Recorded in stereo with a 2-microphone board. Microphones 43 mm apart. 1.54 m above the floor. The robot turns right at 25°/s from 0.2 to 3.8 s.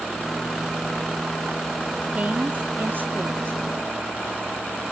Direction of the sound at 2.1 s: 150° right.